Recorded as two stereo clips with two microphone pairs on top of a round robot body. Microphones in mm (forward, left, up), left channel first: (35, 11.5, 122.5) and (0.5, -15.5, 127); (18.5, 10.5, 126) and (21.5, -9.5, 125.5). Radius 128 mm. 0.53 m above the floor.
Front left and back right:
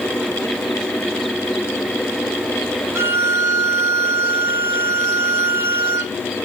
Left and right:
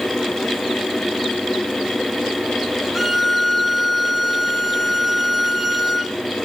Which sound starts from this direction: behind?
A violin, at 3.0 s.